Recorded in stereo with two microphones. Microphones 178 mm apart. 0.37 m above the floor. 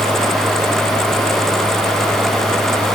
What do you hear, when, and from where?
Only background noise.